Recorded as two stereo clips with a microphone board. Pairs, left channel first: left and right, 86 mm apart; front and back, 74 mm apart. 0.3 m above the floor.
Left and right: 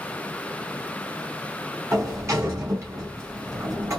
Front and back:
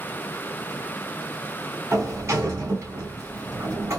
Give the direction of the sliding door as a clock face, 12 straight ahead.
5 o'clock.